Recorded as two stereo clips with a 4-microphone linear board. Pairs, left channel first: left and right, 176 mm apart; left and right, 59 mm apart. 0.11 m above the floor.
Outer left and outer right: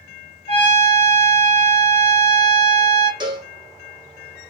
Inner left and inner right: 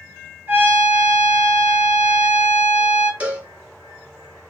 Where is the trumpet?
35° right (ahead or behind), 1.8 m.